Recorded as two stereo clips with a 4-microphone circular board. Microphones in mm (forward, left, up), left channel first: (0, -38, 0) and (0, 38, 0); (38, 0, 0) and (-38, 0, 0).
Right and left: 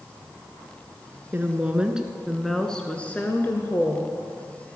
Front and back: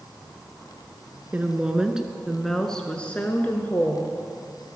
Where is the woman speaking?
130° left, 1.1 m; by 4.2 s 50° right, 1.4 m.